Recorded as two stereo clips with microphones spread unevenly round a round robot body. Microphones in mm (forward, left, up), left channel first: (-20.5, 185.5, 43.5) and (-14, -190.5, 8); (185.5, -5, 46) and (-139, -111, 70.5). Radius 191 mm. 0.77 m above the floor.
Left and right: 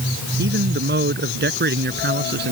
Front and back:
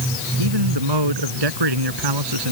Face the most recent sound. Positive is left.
turn(degrees=-155)